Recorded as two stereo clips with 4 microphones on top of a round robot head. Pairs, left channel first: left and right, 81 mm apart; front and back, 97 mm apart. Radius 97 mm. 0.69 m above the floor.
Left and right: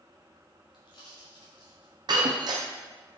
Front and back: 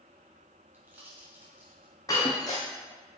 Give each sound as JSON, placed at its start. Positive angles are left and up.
{"t": 0.7, "sound": "a pop", "azimuth_deg": 110, "distance_m": 3.0}
{"t": 2.1, "sound": "breaking glass", "azimuth_deg": -65, "distance_m": 1.3}